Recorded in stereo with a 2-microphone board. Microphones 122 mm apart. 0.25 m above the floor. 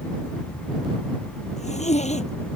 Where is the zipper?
65° left (ahead or behind).